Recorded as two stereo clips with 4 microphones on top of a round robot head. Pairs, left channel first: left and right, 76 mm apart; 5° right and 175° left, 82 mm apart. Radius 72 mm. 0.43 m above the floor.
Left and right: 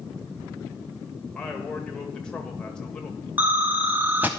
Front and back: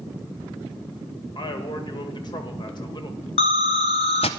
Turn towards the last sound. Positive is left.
turn(degrees=-15)